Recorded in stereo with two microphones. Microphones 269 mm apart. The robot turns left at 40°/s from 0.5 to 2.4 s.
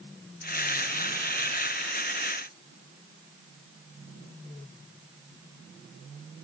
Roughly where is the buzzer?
I don't hear a buzzer.